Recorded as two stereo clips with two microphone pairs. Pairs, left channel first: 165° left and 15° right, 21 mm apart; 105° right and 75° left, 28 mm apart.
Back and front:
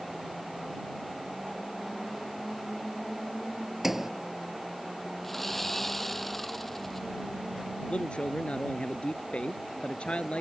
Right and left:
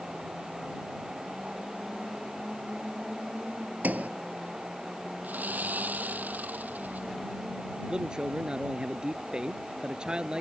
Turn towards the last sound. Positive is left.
turn(degrees=140)